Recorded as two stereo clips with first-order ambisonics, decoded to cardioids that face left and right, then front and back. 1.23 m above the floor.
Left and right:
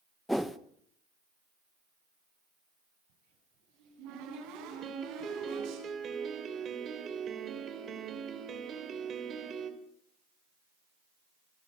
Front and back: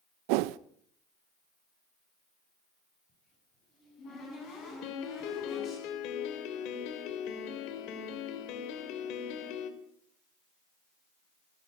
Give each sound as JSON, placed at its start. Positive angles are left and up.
{"t": 0.3, "sound": "a whoosh", "azimuth_deg": 180, "distance_m": 0.7}
{"t": 3.1, "sound": "a cupboard door", "azimuth_deg": -60, "distance_m": 10.0}
{"t": 4.8, "sound": "a piano", "azimuth_deg": -30, "distance_m": 2.5}